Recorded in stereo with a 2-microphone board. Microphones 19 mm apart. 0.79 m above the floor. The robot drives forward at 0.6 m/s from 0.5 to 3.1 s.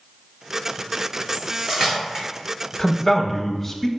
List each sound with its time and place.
1.3 s cutlery clinking: 50° right (ahead or behind), 0.8 m; by 2.2 s 30° right (ahead or behind), 1.3 m
2.8 s a man speaking: 10° left (ahead or behind), 0.7 m; by 3.9 s 15° left (ahead or behind), 0.5 m